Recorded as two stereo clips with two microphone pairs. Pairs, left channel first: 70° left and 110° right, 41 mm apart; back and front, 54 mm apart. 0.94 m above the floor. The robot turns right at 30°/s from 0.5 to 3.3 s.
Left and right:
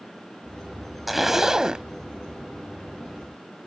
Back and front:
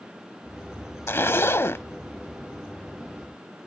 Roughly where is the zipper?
Behind.